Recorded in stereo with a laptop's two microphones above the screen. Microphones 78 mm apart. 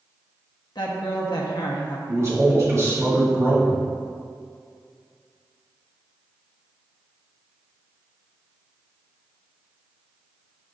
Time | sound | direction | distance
0.8 | a woman speaking | 65° left (ahead or behind) | 1.1 m
2.1 | a man speaking | 40° right (ahead or behind) | 1.6 m